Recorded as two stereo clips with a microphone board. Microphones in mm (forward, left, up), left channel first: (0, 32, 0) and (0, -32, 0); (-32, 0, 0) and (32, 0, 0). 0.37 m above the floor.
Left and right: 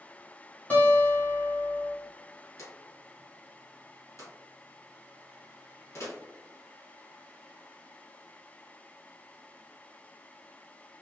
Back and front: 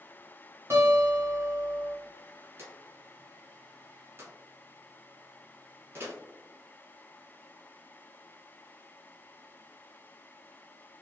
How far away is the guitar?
About 1.8 m.